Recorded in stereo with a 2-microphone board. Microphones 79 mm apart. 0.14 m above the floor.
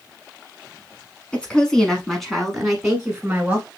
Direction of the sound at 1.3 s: 15° left (ahead or behind).